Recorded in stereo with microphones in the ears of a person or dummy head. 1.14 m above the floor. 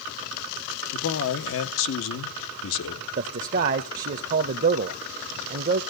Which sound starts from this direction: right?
A man speaking, at 3.2 s.